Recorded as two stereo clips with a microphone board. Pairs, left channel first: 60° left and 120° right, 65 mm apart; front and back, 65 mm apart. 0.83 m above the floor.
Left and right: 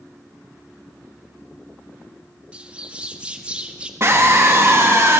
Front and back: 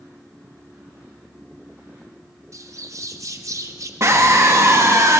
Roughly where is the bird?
Behind.